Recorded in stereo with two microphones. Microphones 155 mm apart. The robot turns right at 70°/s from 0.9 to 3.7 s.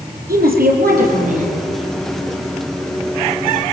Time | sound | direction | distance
0.3 | a woman speaking | 90° right | 5 m